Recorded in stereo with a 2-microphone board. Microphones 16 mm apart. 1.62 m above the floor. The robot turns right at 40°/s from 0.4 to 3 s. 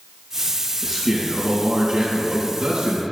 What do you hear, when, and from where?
0.8 s a man speaking: 175° right, 2.5 m; by 3.0 s 85° right, 2.5 m